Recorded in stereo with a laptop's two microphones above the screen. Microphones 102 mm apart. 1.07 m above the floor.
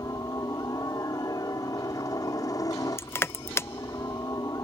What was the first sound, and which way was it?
A helicopter, 35° left (ahead or behind).